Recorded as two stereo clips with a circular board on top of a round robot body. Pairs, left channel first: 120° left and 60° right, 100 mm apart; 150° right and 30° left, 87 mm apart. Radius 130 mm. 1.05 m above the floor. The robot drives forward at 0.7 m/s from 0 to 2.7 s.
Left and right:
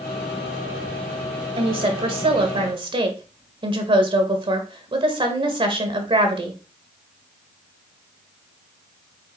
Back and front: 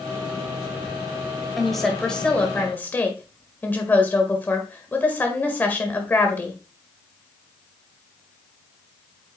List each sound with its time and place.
1.6 s a woman speaking: 60° right, 2 m; by 6.6 s 85° right, 1.9 m